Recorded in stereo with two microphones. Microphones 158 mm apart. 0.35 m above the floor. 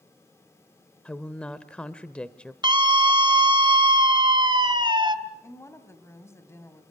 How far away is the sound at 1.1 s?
About 0.9 m.